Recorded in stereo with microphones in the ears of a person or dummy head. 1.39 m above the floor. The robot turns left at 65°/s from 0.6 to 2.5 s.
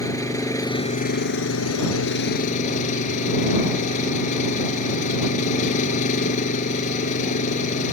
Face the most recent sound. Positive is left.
turn(degrees=40)